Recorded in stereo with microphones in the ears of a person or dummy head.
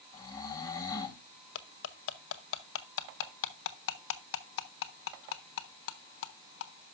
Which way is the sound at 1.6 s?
70° left (ahead or behind).